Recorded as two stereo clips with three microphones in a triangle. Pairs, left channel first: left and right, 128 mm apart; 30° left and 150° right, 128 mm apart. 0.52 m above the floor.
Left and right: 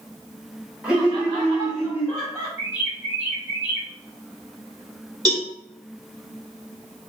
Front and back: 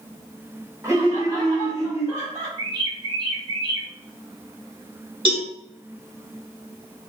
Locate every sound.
0.8 s laughter: 155° right, 1.2 m; by 2.5 s 155° left, 1.8 m
2.6 s a bird: 155° right, 1.3 m
5.2 s a cowbell: 130° right, 1.7 m